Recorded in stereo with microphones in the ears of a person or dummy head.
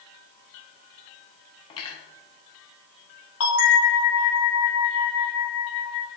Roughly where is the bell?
Left.